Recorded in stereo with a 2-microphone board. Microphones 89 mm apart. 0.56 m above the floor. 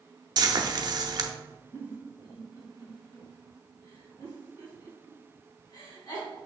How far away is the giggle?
About 3.5 m.